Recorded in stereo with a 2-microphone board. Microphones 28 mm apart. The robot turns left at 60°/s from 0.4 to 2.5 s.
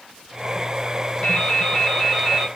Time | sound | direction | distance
1.2 | dripping | 55° left | 1.9 m